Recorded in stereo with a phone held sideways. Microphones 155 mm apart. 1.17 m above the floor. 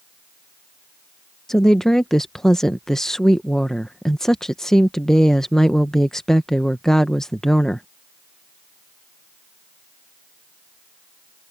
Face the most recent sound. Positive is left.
turn(degrees=5)  # may be behind; listen again after turning